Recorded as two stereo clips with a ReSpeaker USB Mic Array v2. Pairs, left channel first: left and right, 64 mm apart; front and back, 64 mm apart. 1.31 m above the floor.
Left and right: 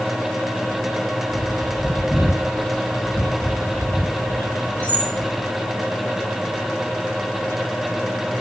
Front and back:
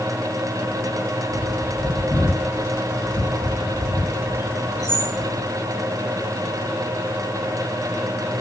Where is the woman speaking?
No woman speaking in this recording.